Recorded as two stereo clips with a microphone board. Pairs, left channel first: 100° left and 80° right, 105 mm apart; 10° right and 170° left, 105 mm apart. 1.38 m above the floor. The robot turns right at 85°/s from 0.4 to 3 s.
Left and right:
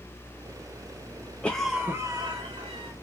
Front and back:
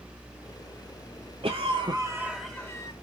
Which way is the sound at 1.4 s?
175° left.